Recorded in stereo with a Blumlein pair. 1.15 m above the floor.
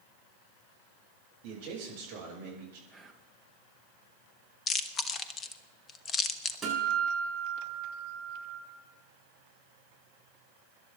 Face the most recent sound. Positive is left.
turn(degrees=-10)